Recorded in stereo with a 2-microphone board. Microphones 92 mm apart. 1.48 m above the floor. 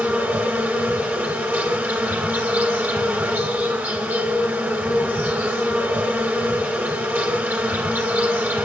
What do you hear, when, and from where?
0.0 s an insect: 20° right (ahead or behind), 2.5 m